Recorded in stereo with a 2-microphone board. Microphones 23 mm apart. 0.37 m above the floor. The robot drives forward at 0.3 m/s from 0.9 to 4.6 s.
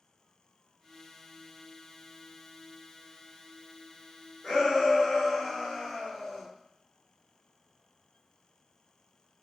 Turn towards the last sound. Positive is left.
turn(degrees=35)  # may be behind; listen again after turning